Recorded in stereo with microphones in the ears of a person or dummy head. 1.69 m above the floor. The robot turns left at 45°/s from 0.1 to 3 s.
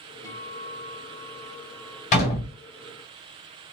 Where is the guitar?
35° left, 1.7 m; by 2.0 s 40° right, 1.7 m.